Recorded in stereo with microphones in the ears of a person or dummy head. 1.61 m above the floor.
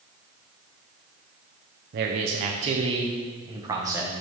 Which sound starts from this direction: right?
A man speaking, at 1.9 s.